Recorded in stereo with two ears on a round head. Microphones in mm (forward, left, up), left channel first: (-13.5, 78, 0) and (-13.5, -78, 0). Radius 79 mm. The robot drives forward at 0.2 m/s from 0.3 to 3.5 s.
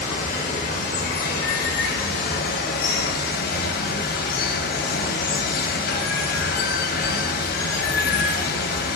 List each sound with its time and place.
0.0 s running water: 45° left (ahead or behind), 1.0 m; by 9.0 s 55° left (ahead or behind), 0.9 m